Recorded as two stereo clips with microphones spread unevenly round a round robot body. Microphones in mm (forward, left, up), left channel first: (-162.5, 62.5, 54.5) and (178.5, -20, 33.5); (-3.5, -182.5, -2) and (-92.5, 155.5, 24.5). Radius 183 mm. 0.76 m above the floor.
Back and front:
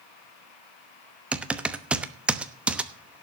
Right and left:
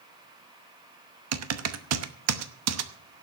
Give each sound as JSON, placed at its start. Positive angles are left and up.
{"t": 1.3, "sound": "typing on a keyboard", "azimuth_deg": 70, "distance_m": 1.0}